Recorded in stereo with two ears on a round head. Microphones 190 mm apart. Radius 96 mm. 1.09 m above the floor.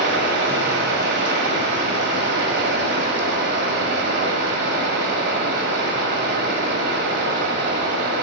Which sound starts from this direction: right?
Running water, at 0.0 s.